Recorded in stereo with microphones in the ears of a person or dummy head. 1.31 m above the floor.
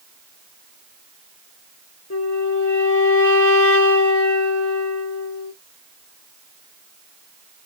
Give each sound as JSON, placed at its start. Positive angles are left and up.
{"t": 2.1, "sound": "a flute", "side_deg": 70, "distance_m": 1.0}